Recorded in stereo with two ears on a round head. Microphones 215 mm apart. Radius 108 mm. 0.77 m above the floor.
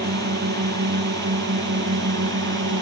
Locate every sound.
0.0 s a drone: 45° right (ahead or behind); by 2.8 s 50° right (ahead or behind)